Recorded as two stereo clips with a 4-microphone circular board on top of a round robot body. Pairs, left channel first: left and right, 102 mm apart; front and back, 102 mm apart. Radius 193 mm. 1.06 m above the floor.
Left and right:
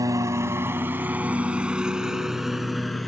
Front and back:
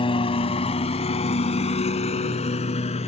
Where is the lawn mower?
35° right; by 3.1 s straight ahead.